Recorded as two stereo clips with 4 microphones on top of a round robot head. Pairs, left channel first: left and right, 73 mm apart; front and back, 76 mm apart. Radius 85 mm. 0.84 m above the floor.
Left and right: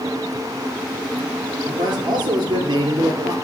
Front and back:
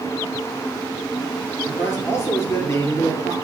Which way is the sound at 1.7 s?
60° right.